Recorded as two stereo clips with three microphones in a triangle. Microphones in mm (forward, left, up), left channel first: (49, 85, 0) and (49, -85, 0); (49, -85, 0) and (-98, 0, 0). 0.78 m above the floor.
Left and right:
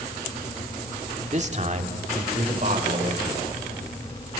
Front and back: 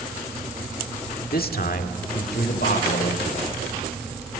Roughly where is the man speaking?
Ahead right.